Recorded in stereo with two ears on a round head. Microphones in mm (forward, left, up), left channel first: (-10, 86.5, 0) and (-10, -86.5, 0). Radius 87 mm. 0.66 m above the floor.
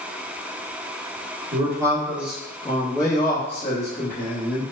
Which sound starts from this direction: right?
A man speaking, at 1.5 s.